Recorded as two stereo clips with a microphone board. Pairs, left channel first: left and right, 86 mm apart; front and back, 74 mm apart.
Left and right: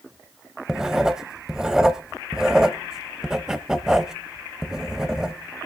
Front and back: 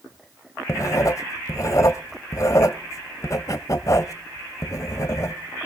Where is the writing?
10° right, 0.9 m.